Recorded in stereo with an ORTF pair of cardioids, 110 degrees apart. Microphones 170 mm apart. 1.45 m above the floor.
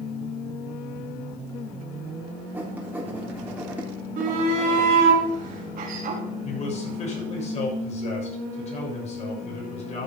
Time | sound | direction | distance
2.5 | writing | 10° right | 3.5 m
4.2 | a shout | 60° right | 3.5 m
6.4 | a man speaking | 40° left | 7 m